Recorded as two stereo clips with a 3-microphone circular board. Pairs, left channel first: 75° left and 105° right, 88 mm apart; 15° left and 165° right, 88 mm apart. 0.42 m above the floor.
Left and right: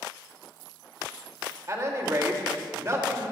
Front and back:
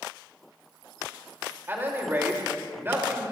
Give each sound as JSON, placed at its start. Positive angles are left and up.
{"t": 1.7, "sound": "a man speaking", "azimuth_deg": -120, "distance_m": 1.8}